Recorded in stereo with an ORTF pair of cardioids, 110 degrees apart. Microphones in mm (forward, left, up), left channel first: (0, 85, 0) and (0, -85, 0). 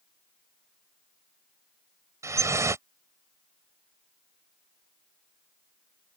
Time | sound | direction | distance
2.2 | dripping | 20° right | ?